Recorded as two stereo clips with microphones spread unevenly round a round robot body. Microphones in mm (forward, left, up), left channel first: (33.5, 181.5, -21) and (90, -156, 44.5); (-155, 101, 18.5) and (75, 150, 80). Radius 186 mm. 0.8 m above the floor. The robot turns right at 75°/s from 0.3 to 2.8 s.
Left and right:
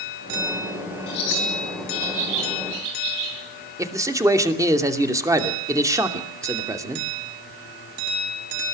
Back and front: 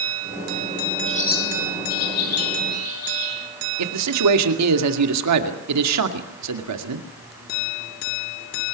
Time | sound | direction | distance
1.1 | a bird | 125° left | 9.5 m
3.8 | a man speaking | 5° left | 2.5 m